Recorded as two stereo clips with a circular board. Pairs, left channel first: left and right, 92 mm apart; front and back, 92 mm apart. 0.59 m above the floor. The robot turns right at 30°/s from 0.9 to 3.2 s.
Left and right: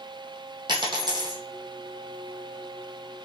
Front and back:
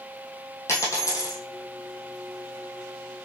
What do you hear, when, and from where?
0.7 s a dropped coin: 60° right, 1.3 m; by 1.4 s 45° right, 1.3 m